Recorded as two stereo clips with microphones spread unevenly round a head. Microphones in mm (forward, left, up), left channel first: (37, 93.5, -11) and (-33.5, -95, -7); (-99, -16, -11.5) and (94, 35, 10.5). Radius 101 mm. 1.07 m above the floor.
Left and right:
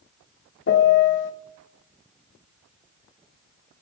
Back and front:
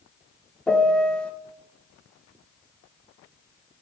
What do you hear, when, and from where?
0.7 s a piano: 110° left, 0.5 m